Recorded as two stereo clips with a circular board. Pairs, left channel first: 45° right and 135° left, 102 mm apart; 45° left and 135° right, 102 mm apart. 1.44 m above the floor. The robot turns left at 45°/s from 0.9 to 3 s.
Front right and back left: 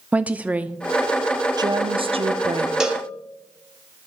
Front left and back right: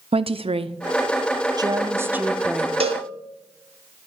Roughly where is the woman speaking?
Behind right.